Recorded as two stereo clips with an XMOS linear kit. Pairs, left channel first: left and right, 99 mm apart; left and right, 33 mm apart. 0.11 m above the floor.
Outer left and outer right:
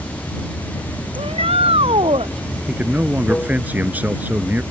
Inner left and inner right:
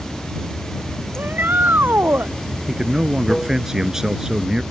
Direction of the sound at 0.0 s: 15° left (ahead or behind).